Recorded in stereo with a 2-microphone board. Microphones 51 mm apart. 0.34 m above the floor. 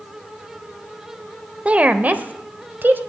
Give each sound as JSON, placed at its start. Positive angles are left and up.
{"t": 1.6, "sound": "a woman speaking", "side_deg": -25, "distance_m": 0.9}